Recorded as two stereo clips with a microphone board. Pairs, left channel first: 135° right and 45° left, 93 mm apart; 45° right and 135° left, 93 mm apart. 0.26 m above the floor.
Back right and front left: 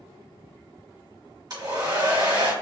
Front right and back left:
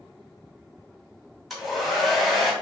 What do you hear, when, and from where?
1.5 s a hair dryer: 45° left, 1.6 m